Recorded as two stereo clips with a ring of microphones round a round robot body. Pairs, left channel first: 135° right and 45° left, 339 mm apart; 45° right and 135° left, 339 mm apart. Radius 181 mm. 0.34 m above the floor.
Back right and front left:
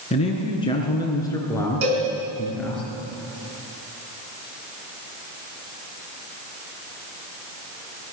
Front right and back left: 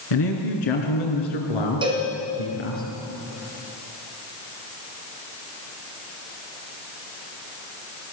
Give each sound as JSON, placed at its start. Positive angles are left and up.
{"t": 0.1, "sound": "a man speaking", "azimuth_deg": -60, "distance_m": 5.0}
{"t": 1.8, "sound": "a cowbell", "azimuth_deg": 60, "distance_m": 4.5}